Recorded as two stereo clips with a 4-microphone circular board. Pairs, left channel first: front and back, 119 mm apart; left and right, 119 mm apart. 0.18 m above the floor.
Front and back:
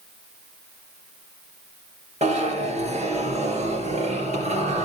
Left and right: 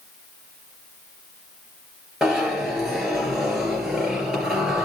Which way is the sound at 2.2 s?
175° right.